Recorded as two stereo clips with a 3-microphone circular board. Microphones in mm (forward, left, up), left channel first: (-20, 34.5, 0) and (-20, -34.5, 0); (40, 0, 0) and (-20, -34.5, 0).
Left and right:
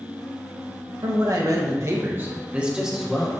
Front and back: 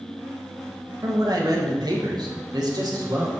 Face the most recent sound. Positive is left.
turn(degrees=180)